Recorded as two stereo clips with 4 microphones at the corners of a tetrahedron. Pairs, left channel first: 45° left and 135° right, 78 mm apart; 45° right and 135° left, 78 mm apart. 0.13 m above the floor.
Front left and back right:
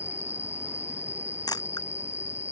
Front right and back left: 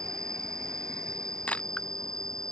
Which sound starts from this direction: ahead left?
A camera shutter, at 1.5 s.